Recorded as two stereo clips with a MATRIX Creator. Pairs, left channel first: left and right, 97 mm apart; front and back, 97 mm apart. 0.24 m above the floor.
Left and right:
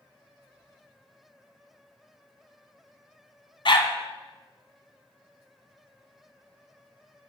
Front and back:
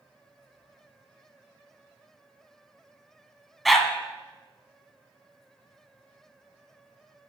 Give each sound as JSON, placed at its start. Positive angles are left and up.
{"t": 3.6, "sound": "a dog barking", "azimuth_deg": 90, "distance_m": 0.8}